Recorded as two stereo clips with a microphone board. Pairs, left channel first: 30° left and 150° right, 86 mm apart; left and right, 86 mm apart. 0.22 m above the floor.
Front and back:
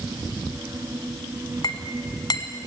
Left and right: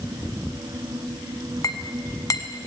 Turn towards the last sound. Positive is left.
turn(degrees=50)